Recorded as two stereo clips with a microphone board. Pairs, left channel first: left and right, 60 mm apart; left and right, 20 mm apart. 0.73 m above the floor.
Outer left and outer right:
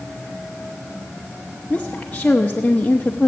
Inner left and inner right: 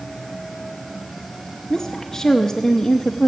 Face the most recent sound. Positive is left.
turn(degrees=20)  # may be behind; listen again after turning